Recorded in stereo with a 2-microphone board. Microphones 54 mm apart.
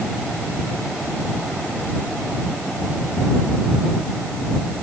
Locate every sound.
Only background noise.